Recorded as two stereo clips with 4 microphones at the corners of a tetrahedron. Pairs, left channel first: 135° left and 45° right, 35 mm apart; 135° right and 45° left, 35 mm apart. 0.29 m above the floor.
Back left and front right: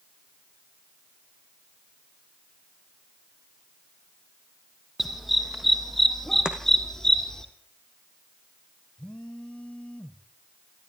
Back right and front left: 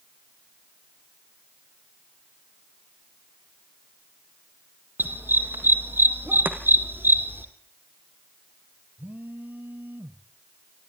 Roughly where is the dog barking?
Ahead left.